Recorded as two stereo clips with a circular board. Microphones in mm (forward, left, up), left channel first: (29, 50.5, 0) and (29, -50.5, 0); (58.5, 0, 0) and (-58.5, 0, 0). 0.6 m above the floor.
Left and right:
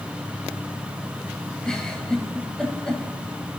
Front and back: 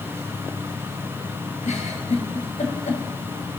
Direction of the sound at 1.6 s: 10° left.